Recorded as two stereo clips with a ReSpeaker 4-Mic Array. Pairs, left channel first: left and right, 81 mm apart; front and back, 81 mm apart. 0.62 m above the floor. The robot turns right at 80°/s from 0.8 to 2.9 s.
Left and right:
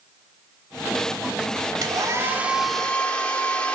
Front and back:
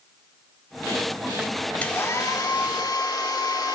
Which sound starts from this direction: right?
A hair dryer, at 1.8 s.